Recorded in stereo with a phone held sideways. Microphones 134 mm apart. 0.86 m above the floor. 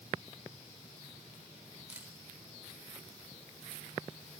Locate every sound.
1.9 s a camera shutter: 15° right (ahead or behind), 4 m